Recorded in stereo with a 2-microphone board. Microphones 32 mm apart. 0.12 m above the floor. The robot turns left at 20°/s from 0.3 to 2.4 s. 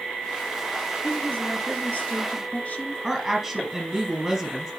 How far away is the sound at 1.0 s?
About 2.5 m.